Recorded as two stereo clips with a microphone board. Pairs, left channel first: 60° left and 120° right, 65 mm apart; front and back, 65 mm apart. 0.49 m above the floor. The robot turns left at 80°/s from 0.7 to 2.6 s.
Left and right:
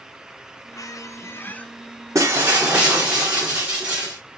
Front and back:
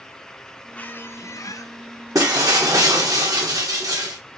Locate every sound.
0.7 s a squeak: 70° left, 0.5 m; by 1.7 s 10° right, 0.5 m
2.1 s breaking glass: 160° right, 2 m; by 4.2 s 165° left, 2 m